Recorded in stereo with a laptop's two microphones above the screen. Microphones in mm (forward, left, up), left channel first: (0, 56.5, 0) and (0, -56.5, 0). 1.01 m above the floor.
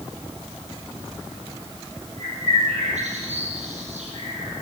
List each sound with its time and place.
2.2 s a bird: 80° right, 8.5 m